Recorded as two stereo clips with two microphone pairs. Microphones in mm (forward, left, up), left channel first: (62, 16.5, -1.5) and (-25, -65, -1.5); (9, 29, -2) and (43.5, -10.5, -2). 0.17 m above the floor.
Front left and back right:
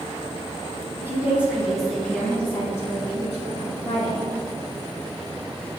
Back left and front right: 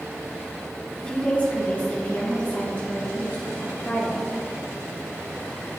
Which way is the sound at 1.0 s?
175° right.